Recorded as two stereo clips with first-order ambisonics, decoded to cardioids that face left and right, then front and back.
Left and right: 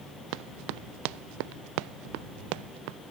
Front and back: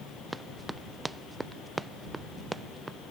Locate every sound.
0.3 s running footsteps: 95° right; by 3.0 s 100° right